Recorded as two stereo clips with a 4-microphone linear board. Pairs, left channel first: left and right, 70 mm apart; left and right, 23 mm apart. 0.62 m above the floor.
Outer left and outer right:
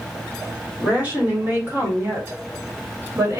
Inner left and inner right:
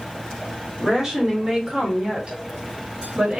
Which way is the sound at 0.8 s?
20° right (ahead or behind).